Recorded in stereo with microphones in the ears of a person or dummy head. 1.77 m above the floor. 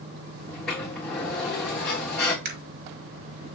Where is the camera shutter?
65° right (ahead or behind), 5 m.